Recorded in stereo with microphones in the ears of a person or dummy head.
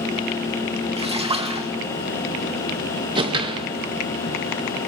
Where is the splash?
20° right (ahead or behind), 1.6 m.